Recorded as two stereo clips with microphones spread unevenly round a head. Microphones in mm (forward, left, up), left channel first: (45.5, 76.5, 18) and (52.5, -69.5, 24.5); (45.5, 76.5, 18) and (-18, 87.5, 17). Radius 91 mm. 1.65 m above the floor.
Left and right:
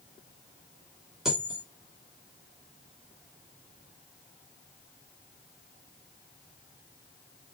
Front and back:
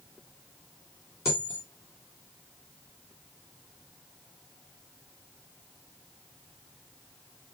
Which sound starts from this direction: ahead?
A dropped coin, at 1.2 s.